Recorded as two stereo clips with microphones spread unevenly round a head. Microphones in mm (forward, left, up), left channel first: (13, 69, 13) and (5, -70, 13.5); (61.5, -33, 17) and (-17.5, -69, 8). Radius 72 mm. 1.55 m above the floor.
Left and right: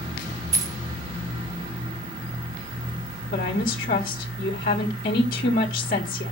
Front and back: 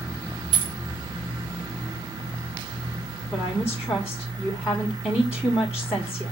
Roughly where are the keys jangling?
Behind right.